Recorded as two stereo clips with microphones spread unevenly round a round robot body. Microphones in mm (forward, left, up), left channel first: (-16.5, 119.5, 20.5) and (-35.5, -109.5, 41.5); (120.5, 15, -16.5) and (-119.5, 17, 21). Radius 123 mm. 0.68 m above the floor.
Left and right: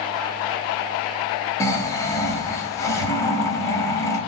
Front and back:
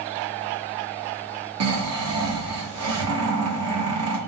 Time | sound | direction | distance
1.6 | snoring | 160° left | 1.5 m